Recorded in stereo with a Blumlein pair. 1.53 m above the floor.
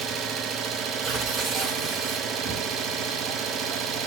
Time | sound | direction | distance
0.0 | an engine running | 25° right | 1.5 m
1.0 | tearing paper | 25° right | 8 m